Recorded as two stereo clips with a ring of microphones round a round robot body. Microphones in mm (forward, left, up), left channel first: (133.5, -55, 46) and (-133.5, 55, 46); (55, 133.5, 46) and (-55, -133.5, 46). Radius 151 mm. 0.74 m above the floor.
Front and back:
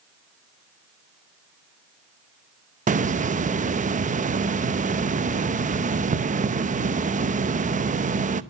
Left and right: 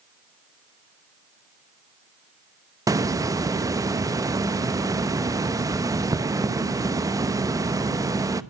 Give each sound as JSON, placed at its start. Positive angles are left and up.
{"t": 2.9, "sound": "a hiss", "azimuth_deg": 180, "distance_m": 0.9}